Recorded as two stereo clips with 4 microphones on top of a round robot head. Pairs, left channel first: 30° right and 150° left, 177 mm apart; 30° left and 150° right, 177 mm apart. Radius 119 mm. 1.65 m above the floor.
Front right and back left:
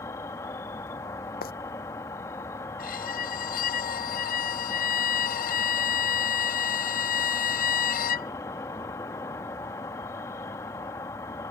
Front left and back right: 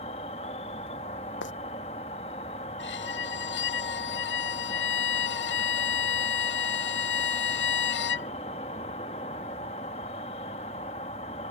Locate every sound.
0.0 s an insect: 30° left
1.4 s footsteps: 10° left
2.8 s a violin: 10° left